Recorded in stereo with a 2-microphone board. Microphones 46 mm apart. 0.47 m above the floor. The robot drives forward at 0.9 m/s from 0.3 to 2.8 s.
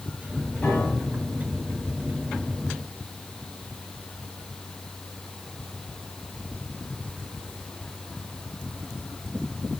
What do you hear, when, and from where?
0.6 s a piano: 40° left (ahead or behind), 5 m; by 1.4 s 45° left (ahead or behind), 4.5 m